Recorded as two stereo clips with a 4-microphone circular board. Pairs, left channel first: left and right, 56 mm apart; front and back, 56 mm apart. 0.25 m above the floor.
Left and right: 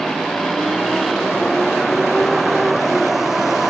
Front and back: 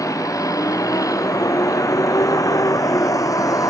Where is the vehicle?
5° left; by 3.7 s 5° right.